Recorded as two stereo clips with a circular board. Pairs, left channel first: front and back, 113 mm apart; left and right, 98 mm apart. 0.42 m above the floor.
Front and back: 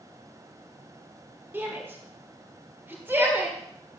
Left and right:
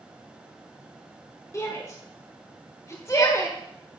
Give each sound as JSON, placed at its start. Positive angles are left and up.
{"t": 1.5, "sound": "a shout", "azimuth_deg": 120, "distance_m": 1.3}